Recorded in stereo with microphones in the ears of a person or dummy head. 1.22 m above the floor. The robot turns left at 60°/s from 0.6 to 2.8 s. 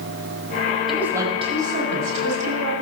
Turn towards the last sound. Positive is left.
turn(degrees=-115)